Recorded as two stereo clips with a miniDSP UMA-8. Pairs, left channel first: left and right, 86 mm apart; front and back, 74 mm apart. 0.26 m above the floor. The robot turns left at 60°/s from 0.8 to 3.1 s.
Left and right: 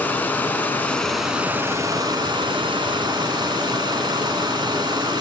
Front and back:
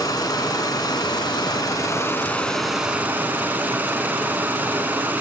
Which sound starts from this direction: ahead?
Running water, at 0.0 s.